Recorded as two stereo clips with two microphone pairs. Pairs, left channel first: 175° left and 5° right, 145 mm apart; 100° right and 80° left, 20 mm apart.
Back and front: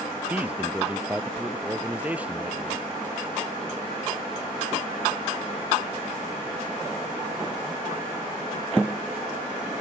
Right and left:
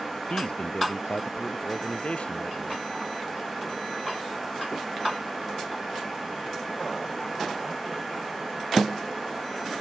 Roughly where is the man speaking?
Right.